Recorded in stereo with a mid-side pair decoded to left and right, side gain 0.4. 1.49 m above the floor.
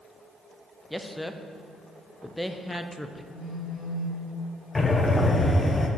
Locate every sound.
0.9 s a man speaking: straight ahead, 0.6 m
3.3 s a phone buzzing: 50° left, 2.5 m
4.8 s breathing: 25° left, 0.8 m